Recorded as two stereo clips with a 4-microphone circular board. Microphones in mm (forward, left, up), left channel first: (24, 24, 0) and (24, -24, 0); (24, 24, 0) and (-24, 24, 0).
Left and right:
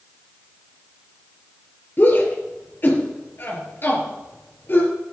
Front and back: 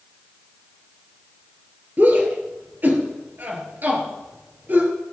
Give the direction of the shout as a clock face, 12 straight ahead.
8 o'clock.